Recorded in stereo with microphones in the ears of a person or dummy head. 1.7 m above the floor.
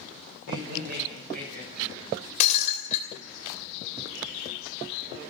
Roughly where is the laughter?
Right.